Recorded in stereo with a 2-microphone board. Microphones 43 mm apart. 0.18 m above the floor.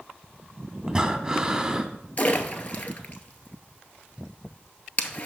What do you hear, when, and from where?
0.9 s breathing: 15° right (ahead or behind), 0.6 m
2.2 s a splash: 35° left (ahead or behind), 0.8 m